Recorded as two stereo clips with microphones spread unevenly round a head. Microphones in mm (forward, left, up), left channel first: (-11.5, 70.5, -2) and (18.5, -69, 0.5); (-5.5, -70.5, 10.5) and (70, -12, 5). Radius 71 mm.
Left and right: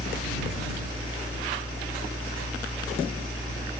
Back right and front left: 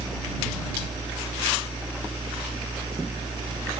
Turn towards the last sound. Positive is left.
turn(degrees=60)